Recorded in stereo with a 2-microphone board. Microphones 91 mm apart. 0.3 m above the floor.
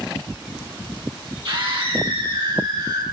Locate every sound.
1.4 s a scream: 55° right (ahead or behind), 9 m; by 3.0 s 50° right (ahead or behind), 10.5 m